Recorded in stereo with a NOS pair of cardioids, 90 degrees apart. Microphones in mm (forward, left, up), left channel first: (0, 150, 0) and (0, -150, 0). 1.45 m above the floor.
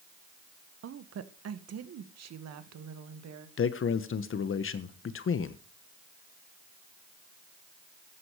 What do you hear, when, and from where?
0.8 s a woman speaking: 50° right, 1.4 m; by 3.5 s 65° right, 2.5 m
3.6 s a man speaking: 45° left, 1.3 m